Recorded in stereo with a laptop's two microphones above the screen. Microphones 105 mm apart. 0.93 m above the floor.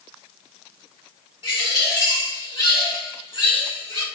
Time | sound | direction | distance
1.4 | a bird | 60° left (ahead or behind) | 1.9 m